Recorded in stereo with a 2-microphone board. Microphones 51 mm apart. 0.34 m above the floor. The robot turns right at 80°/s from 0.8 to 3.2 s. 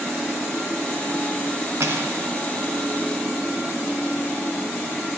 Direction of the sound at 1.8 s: 70° right.